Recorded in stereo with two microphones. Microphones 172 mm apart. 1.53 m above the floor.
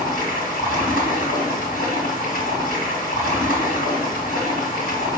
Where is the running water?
70° left (ahead or behind), 3 m.